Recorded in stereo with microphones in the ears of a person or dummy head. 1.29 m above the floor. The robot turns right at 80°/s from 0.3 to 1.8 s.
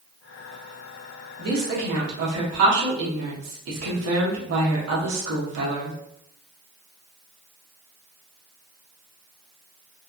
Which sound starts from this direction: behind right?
A woman speaking, at 1.4 s.